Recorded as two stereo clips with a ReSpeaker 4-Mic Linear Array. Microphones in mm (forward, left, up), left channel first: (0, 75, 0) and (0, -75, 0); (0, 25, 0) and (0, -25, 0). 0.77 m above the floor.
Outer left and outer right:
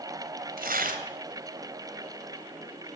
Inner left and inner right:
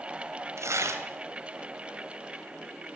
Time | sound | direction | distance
0.6 | tearing paper | 75° right (ahead or behind) | 3 m